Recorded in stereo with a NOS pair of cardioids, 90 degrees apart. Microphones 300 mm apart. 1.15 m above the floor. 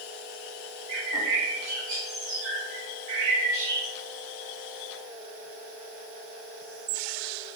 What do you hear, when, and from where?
0.9 s a bird: 65° right, 1.5 m